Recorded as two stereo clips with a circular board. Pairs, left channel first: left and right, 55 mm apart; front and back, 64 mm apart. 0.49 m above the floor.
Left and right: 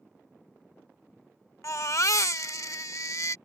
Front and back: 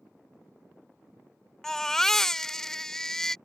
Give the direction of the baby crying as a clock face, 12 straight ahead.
9 o'clock.